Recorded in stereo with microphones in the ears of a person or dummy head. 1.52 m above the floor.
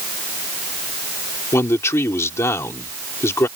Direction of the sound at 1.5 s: 15° left (ahead or behind).